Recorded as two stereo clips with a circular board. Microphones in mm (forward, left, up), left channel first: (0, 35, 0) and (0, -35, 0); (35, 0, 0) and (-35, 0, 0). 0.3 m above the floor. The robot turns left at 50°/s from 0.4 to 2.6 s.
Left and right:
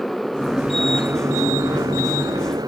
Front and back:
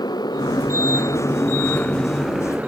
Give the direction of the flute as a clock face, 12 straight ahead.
I don't hear a flute.